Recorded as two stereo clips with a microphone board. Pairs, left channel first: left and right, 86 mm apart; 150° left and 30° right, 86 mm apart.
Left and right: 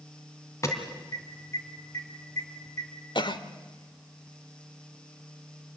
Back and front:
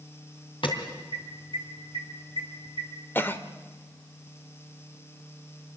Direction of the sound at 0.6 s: 145° left.